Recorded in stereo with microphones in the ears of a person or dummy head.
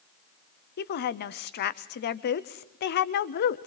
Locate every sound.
0.8 s a woman speaking: 50° left (ahead or behind), 0.9 m